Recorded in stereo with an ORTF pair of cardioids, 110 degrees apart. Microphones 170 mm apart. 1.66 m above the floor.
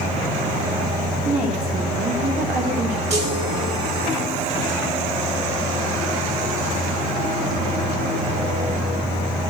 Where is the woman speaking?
55° right, 3 m; by 3.0 s 70° right, 2.5 m.